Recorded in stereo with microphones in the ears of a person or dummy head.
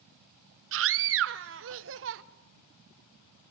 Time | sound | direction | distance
0.7 | a scream | 55° right (ahead or behind) | 0.8 m